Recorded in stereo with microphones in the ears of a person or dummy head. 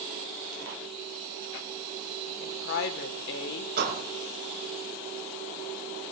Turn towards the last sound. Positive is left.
turn(degrees=-65)  # may be behind; listen again after turning